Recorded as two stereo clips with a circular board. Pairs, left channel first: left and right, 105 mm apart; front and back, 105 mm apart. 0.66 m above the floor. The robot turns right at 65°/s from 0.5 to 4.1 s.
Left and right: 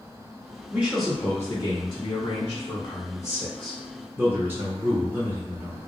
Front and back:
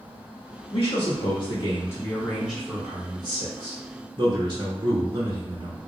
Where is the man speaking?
15° right, 1.0 m; by 5.8 s 160° right, 1.0 m.